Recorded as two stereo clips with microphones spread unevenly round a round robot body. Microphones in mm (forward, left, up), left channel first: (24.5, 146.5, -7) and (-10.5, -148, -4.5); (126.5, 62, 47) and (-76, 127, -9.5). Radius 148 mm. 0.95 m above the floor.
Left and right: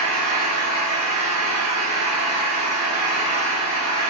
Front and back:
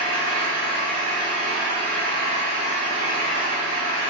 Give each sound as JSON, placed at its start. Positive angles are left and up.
{"t": 0.0, "sound": "an engine running", "azimuth_deg": -135, "distance_m": 1.4}